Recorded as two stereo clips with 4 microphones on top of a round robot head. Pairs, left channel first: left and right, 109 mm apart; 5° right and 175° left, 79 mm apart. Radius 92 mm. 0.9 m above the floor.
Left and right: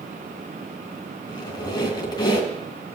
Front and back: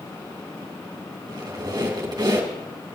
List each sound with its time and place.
1.3 s a squeak: 140° left, 2.5 m